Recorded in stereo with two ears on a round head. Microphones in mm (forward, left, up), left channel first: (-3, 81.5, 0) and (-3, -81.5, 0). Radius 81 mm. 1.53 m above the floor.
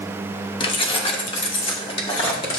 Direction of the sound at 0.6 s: 25° left (ahead or behind).